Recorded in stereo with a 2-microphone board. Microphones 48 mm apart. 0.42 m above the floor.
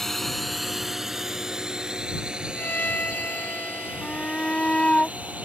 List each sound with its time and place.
0.0 s a drone: 5° left (ahead or behind); by 5.5 s 30° right (ahead or behind)
2.5 s a violin: 35° left (ahead or behind)
4.0 s a shout: 25° left (ahead or behind)